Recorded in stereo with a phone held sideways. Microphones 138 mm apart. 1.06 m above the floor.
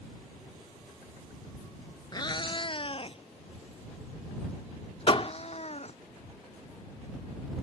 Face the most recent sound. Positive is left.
turn(degrees=40)  # may be behind; listen again after turning